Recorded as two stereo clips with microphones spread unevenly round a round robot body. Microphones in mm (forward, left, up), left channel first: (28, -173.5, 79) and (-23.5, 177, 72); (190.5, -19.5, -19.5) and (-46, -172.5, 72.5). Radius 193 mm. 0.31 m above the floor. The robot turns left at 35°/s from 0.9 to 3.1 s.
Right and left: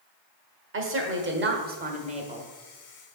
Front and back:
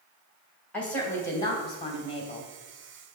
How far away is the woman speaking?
About 1.4 m.